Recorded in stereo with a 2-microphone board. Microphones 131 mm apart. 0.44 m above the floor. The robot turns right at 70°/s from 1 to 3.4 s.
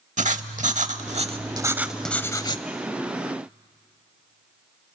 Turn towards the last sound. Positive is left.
turn(degrees=100)